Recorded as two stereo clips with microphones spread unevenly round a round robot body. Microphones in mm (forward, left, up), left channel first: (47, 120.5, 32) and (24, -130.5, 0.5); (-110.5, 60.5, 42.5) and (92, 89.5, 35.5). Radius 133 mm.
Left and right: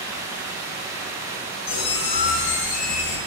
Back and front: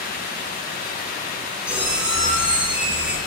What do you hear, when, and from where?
1.7 s a squeak: 95° left, 0.5 m